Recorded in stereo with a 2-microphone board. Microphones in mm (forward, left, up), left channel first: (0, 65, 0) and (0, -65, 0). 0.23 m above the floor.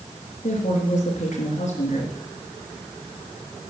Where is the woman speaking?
70° left (ahead or behind), 4 m.